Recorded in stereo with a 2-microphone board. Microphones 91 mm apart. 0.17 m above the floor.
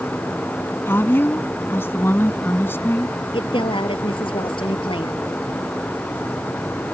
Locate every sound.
0.9 s a woman speaking: 25° left (ahead or behind)
3.3 s a woman speaking: 70° left (ahead or behind)